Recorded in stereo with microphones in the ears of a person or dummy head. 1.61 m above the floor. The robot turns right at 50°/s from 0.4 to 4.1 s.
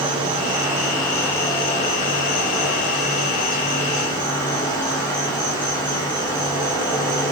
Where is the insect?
30° right, 1.0 m; by 7.3 s 155° left, 1.0 m.